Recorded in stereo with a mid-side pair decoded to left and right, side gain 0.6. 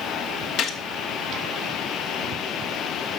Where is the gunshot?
60° left, 2 m.